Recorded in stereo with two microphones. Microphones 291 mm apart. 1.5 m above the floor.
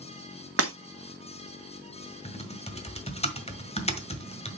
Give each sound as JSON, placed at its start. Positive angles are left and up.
{"t": 0.6, "sound": "breaking glass", "side_deg": -50, "distance_m": 1.3}
{"t": 2.2, "sound": "typing on a keyboard", "side_deg": 20, "distance_m": 1.6}